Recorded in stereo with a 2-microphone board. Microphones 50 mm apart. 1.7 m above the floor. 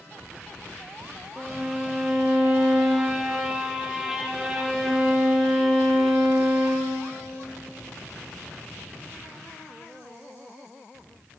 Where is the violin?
10° right (ahead or behind), 0.6 m.